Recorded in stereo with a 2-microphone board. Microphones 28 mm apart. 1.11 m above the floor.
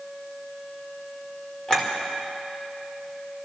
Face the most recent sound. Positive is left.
turn(degrees=35)  # may be behind; listen again after turning